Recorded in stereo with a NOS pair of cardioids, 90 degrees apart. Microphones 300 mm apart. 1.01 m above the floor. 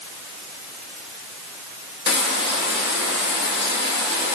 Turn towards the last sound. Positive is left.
turn(degrees=35)